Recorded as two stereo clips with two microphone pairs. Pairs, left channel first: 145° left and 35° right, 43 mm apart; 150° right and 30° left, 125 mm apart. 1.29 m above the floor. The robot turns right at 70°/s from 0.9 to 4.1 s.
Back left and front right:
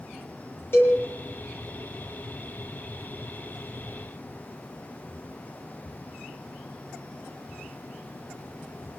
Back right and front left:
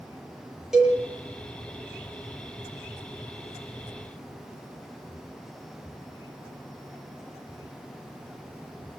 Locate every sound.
0.7 s a cowbell: 115° left, 8 m; by 1.0 s 120° left, 8 m